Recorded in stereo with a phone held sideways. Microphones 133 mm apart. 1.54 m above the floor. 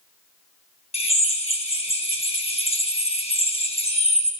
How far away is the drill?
About 1.2 m.